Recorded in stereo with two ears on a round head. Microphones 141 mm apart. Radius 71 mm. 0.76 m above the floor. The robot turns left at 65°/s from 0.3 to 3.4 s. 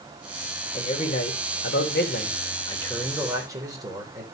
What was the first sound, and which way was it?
A man speaking, 150° left.